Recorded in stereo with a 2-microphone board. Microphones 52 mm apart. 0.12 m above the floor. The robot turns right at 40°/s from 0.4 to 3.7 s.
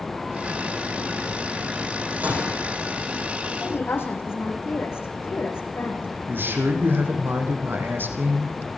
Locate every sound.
2.2 s a gunshot: 30° right (ahead or behind), 6 m; by 2.7 s 10° right (ahead or behind), 6 m
3.6 s a woman speaking: 55° left (ahead or behind), 6.5 m
6.3 s a man speaking: 45° right (ahead or behind), 5 m